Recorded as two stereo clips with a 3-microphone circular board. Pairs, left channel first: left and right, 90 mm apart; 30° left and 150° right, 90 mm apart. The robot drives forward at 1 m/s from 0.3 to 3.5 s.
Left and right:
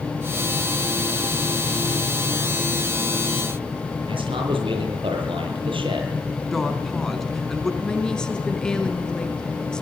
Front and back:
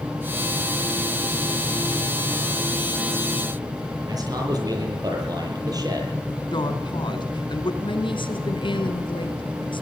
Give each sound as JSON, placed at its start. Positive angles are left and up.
{"t": 4.1, "sound": "a man speaking", "azimuth_deg": -105, "distance_m": 9.5}
{"t": 6.5, "sound": "a woman speaking", "azimuth_deg": 5, "distance_m": 3.5}
{"t": 7.8, "sound": "a woman speaking", "azimuth_deg": 10, "distance_m": 4.0}